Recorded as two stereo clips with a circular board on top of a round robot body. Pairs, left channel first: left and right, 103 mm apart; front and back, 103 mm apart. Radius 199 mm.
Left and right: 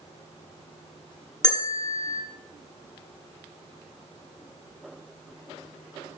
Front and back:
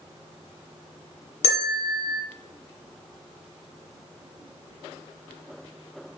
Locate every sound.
1.4 s a bell: 5° left, 2 m